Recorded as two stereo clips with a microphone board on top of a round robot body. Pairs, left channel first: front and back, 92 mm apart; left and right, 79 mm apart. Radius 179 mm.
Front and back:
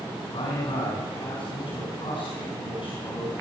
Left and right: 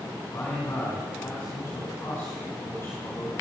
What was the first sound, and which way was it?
A man speaking, 30° left.